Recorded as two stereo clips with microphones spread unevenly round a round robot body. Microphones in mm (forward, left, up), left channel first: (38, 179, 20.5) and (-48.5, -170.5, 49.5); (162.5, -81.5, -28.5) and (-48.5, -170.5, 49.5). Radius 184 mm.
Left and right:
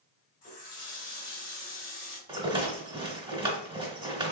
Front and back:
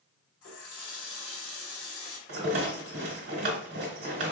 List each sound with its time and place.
0.4 s a running tap: 10° left, 2 m
2.3 s a rattle: straight behind, 1.1 m